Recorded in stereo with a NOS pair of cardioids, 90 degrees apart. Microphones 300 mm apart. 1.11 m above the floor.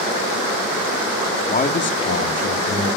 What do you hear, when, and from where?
1.5 s a man speaking: 25° left, 1.8 m; by 2.9 s 60° left, 3 m